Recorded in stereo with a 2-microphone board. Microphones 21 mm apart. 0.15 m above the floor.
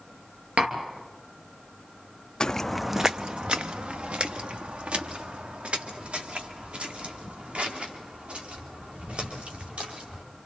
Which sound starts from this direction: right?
Tapping, at 0.6 s.